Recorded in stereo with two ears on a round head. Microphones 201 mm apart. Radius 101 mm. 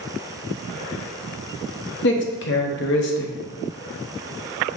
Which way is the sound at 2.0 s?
50° left (ahead or behind).